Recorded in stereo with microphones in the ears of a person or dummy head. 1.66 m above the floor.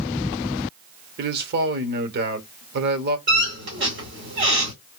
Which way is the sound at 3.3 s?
55° right (ahead or behind).